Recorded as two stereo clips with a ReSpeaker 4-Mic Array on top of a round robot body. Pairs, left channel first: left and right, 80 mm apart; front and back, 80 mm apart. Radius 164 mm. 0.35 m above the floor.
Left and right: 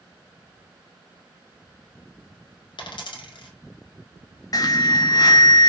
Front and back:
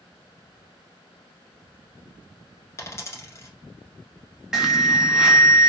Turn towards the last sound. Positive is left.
turn(degrees=100)